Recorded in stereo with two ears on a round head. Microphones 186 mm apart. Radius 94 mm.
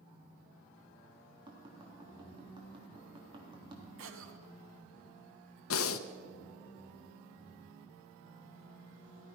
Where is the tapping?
25° right (ahead or behind), 3.5 m.